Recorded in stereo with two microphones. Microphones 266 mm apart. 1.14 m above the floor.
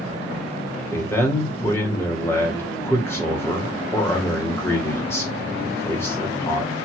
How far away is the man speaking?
About 1.2 m.